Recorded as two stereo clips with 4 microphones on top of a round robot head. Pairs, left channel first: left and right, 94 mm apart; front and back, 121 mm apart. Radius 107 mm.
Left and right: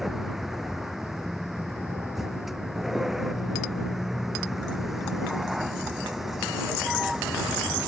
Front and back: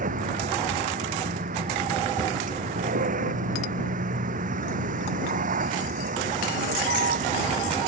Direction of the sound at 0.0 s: Straight behind.